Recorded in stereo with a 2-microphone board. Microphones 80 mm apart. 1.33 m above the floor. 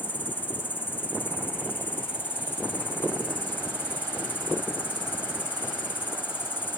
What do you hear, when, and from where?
0.0 s an insect: 25° left (ahead or behind)